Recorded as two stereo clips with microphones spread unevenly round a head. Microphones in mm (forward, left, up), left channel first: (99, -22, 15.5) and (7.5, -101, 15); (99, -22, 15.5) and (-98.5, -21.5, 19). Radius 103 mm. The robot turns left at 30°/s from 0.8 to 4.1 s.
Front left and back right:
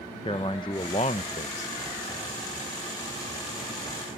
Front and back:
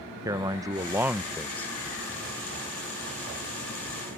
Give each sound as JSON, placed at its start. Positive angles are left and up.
{"t": 0.2, "sound": "a man speaking", "azimuth_deg": 105}